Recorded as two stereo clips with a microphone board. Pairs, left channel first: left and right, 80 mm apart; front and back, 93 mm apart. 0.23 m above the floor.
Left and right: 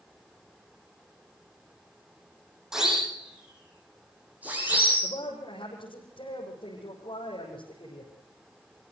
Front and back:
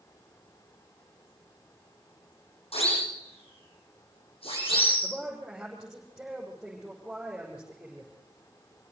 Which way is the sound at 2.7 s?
5° right.